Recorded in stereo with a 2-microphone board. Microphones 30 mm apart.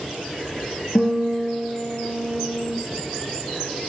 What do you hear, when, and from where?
0.9 s a guitar: 50° left (ahead or behind), 0.9 m